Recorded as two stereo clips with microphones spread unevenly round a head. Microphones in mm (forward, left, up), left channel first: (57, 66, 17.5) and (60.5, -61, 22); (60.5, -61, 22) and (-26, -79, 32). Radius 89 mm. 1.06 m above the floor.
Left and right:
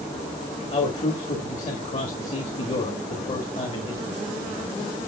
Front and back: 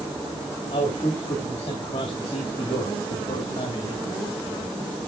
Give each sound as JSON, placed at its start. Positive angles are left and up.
{"t": 0.7, "sound": "a man speaking", "azimuth_deg": 60, "distance_m": 1.6}